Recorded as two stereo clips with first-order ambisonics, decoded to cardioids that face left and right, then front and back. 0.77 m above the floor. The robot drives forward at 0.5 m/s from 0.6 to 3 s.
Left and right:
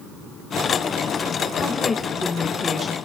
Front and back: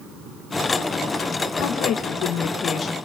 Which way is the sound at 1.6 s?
10° left.